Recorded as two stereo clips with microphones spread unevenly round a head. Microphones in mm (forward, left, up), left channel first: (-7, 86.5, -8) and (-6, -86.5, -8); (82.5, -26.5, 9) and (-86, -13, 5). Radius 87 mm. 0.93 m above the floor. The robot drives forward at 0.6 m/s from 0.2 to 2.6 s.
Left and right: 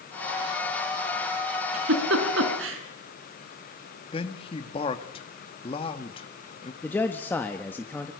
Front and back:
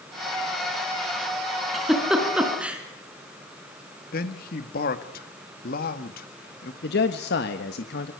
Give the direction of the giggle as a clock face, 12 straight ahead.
3 o'clock.